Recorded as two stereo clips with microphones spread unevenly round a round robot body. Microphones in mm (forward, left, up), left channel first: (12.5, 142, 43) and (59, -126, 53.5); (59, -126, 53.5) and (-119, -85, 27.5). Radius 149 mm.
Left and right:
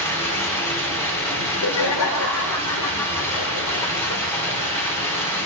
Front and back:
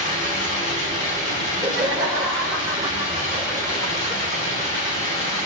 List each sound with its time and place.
0.0 s running water: 20° left, 4.5 m
1.4 s laughter: 90° left, 1.8 m